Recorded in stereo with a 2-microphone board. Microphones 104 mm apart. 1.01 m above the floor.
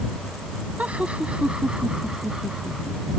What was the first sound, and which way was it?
Laughter, 10° right (ahead or behind).